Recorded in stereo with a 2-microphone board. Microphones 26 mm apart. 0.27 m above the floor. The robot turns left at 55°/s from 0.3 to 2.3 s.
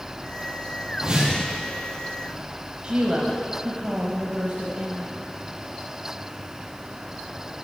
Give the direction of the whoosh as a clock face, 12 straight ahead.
1 o'clock.